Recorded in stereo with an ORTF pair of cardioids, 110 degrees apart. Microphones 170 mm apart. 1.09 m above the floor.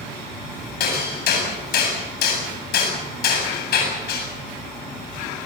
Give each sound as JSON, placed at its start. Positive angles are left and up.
{"t": 0.8, "sound": "hammering", "azimuth_deg": 65, "distance_m": 8.0}